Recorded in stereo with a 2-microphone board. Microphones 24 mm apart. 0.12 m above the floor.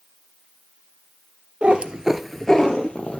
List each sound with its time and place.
1.6 s a cat meowing: 50° right (ahead or behind), 1.2 m; by 3.2 s 50° left (ahead or behind), 1.6 m